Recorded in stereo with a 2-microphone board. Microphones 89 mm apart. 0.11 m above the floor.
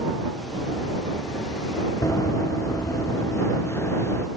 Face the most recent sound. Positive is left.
turn(degrees=25)  # may be behind; listen again after turning